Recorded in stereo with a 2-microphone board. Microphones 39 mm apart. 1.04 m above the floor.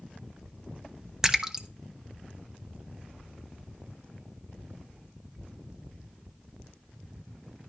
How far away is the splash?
About 0.9 m.